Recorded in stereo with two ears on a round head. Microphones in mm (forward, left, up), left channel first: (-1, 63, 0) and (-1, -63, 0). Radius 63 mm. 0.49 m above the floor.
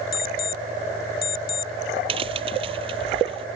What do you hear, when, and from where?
0.1 s an alarm clock: 65° left (ahead or behind)
2.1 s a crack: 35° right (ahead or behind)